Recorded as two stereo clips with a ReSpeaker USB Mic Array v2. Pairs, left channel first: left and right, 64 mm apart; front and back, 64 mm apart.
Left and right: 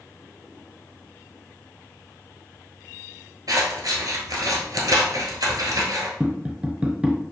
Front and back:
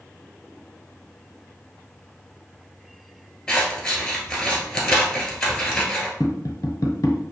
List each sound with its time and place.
3.5 s scissors: 80° right, 1.3 m
6.2 s tapping: 20° right, 0.8 m